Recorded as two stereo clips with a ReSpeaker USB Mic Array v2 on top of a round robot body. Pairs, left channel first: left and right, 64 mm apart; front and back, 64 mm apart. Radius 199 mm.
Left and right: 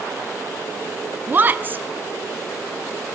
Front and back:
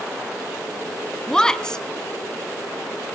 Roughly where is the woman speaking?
Right.